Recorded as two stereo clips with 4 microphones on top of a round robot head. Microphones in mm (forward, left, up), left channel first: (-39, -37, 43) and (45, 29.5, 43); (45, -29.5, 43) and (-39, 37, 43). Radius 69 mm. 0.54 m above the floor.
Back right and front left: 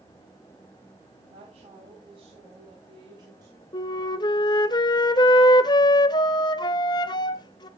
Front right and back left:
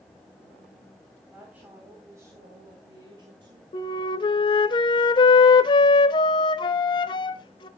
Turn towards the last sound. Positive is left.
turn(degrees=-90)